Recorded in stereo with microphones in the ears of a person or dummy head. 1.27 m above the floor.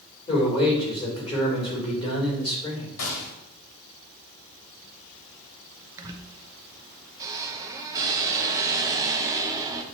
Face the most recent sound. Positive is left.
turn(degrees=-15)  # may be behind; listen again after turning